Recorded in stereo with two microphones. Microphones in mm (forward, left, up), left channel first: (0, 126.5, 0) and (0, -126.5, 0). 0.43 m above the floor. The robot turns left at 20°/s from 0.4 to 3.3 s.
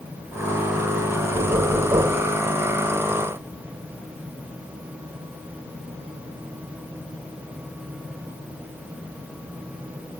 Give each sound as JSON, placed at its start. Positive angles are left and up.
{"t": 1.3, "sound": "knocking", "side_deg": -25}